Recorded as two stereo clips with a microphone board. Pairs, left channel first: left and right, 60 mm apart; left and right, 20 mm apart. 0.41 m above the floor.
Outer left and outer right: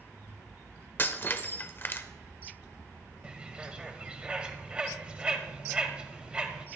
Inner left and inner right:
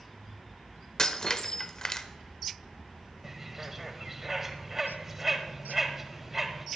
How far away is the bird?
About 1.4 m.